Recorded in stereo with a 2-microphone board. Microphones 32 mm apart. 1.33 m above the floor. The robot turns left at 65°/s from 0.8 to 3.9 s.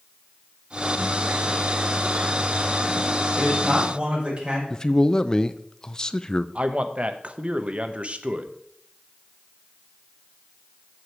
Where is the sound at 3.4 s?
Straight ahead, 5.5 m; by 4.6 s 35° right, 5.5 m.